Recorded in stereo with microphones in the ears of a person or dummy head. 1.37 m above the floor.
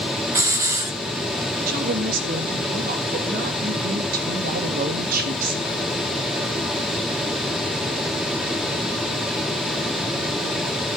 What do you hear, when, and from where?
0.3 s a hiss: 20° right (ahead or behind), 1.1 m
1.7 s a woman speaking: 50° right (ahead or behind), 1.7 m